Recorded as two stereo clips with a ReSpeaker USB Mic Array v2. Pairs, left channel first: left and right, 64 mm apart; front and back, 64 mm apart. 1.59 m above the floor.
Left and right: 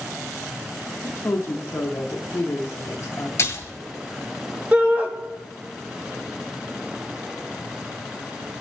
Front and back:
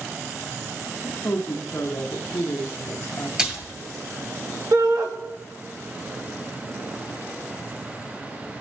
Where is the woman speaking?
45° left, 0.7 m.